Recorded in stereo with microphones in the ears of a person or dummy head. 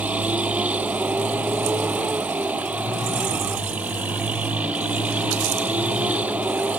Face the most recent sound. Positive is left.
turn(degrees=-10)  # may be behind; listen again after turning